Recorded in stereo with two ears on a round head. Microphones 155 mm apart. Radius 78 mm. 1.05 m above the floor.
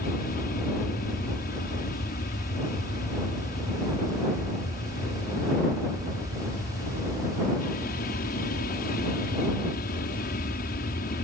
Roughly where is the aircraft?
Left.